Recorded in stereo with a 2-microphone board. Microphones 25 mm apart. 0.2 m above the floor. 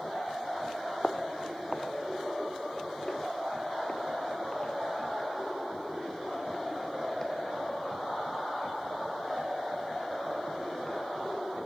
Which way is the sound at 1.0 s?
40° left (ahead or behind).